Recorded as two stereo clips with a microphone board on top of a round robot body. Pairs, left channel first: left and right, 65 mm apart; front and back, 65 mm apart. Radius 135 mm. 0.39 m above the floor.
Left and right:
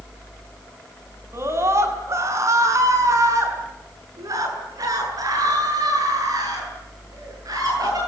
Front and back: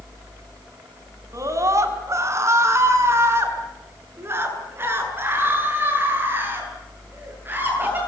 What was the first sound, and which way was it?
A scream, 140° right.